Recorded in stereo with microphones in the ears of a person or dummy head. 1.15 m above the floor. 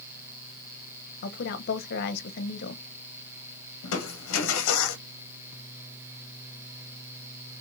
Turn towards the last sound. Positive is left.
turn(degrees=85)